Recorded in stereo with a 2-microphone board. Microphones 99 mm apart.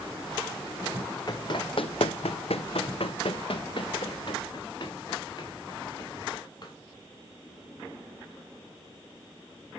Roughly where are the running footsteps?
Left.